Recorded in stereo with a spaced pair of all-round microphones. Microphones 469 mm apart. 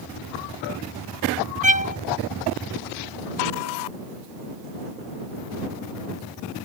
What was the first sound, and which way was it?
A violin, 15° right (ahead or behind).